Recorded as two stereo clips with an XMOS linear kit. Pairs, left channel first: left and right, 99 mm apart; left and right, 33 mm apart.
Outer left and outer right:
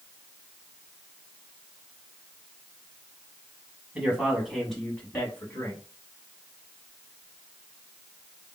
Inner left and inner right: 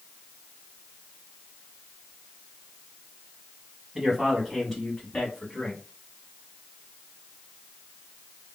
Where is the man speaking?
10° right (ahead or behind), 1.5 m; by 5.8 s 25° left (ahead or behind), 1.5 m.